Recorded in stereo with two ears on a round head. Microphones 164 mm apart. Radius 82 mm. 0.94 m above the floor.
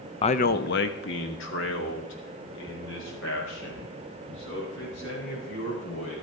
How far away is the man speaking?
About 0.6 m.